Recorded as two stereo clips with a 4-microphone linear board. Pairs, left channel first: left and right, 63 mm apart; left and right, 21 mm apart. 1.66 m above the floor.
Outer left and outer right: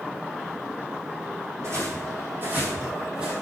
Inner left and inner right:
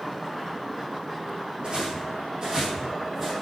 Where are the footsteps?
50° right (ahead or behind), 4 m; by 3.3 s 15° right (ahead or behind), 3 m.